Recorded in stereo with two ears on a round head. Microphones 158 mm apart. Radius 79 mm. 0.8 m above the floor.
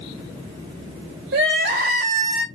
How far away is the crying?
About 1.7 m.